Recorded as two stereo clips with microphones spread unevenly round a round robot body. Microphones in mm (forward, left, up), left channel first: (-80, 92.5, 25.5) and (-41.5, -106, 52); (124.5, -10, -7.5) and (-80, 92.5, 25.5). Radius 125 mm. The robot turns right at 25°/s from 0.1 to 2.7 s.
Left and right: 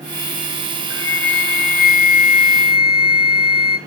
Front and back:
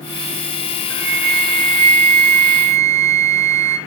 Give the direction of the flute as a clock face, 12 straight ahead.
8 o'clock.